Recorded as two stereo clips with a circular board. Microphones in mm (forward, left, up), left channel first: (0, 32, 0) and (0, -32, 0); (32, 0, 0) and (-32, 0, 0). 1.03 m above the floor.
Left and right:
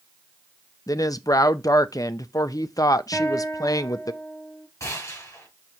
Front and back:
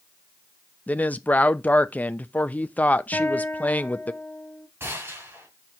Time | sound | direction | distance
0.9 | a woman speaking | 65° left | 0.5 m
3.1 | a guitar | 55° left | 1.3 m
4.8 | a gunshot | 130° left | 4 m